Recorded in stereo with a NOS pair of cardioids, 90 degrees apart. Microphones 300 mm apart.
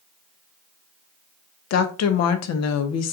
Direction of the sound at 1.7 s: 65° left.